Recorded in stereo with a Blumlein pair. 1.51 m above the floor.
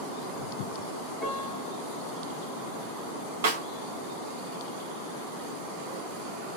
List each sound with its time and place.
1.2 s a piano: 15° left, 1.1 m
3.4 s a snare drum: 60° right, 0.9 m